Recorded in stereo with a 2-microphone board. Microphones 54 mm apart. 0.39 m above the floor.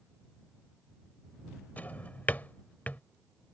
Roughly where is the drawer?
Left.